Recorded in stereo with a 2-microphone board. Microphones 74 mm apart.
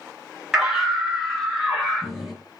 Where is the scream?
10° right (ahead or behind), 1.7 m; by 2.4 s 5° right (ahead or behind), 3 m.